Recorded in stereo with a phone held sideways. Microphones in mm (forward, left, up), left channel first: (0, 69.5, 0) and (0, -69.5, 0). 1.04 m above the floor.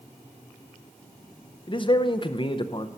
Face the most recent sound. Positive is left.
turn(degrees=35)  # may be behind; listen again after turning